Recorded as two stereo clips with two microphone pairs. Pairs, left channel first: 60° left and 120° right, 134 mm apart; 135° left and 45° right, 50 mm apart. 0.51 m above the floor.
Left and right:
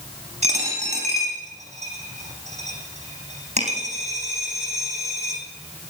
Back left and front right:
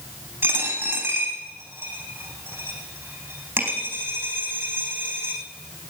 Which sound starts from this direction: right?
A dropped coin, at 0.4 s.